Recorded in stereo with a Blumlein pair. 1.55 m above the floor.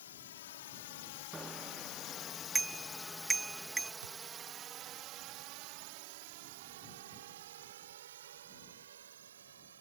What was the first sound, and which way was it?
A drone, 65° left.